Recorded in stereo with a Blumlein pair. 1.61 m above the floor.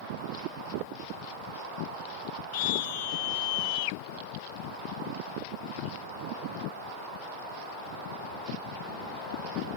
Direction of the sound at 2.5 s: 50° left.